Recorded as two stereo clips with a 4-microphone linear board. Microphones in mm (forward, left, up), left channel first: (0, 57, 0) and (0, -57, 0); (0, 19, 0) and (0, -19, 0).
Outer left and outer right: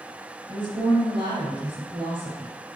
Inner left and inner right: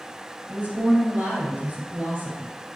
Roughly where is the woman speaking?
Right.